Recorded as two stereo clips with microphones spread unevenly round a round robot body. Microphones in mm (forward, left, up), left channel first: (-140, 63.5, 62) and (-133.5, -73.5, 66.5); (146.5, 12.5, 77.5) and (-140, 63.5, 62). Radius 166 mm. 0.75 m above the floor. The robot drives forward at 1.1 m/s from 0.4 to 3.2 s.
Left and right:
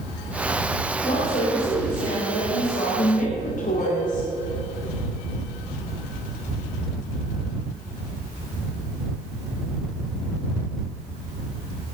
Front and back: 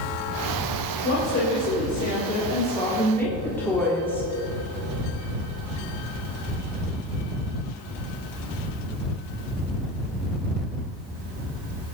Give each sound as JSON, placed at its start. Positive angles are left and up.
{"t": 1.0, "sound": "a woman speaking", "azimuth_deg": 35, "distance_m": 3.5}